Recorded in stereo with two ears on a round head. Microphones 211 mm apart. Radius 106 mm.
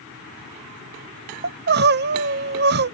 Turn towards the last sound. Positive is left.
turn(degrees=-45)  # may be behind; listen again after turning